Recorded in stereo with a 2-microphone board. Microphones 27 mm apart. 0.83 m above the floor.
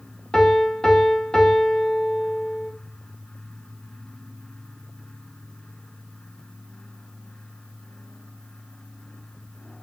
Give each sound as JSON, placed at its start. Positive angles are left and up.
{"t": 0.3, "sound": "a piano", "side_deg": 20, "distance_m": 0.6}